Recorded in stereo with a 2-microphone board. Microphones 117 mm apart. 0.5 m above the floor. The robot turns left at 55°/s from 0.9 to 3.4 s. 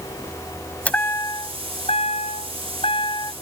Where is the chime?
170° left; by 3.3 s 35° left.